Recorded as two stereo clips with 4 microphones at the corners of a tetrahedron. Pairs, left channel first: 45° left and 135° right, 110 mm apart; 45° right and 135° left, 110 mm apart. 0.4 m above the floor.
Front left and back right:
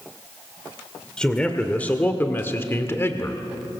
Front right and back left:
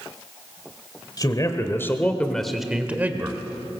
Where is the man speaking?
35° right, 1.8 m; by 3.4 s 95° left, 1.7 m.